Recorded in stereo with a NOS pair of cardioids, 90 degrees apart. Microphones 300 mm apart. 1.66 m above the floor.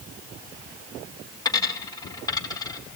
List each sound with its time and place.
1.4 s a dropped coin: 15° left, 4 m